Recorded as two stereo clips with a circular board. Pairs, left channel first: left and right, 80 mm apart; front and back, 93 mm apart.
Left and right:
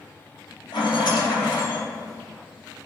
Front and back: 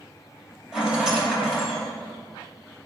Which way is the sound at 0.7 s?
95° left.